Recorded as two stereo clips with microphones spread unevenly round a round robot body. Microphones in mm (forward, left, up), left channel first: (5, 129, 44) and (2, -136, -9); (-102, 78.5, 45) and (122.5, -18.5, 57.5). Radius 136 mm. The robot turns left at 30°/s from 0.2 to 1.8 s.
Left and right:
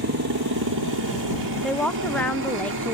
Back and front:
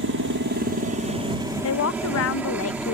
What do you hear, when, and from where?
0.0 s a helicopter: 60° right; by 3.0 s 110° right
1.6 s a woman speaking: 175° right; by 3.0 s straight behind